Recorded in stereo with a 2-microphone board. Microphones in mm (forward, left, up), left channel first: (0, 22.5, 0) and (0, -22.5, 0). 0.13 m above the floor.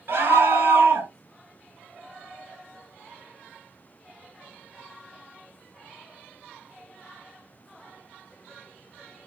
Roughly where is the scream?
Right.